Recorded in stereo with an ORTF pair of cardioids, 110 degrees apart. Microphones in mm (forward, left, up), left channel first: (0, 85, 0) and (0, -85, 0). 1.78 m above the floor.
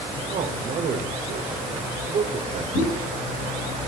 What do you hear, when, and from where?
0.3 s a man speaking: 50° right, 1.2 m
2.7 s a pop: 55° left, 3 m